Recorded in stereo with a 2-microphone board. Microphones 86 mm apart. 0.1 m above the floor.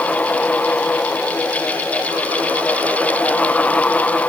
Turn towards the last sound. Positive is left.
No sound to turn to.